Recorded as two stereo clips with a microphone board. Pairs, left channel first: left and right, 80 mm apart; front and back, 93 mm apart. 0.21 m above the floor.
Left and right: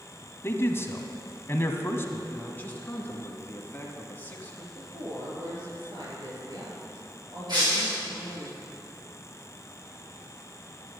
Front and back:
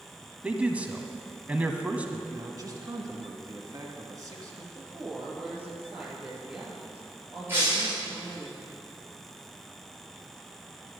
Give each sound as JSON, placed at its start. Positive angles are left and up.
{"t": 0.4, "sound": "a man speaking", "azimuth_deg": 115, "distance_m": 1.2}
{"t": 2.3, "sound": "a man speaking", "azimuth_deg": 150, "distance_m": 2.0}
{"t": 4.8, "sound": "a woman speaking", "azimuth_deg": -105, "distance_m": 4.5}
{"t": 7.5, "sound": "breaking glass", "azimuth_deg": -120, "distance_m": 5.0}